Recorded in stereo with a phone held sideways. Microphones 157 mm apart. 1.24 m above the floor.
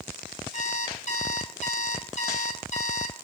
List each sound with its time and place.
0.5 s an alarm clock: 50° left (ahead or behind), 6 m